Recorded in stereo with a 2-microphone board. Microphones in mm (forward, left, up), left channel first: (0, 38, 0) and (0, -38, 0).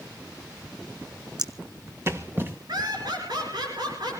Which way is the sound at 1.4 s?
60° right (ahead or behind).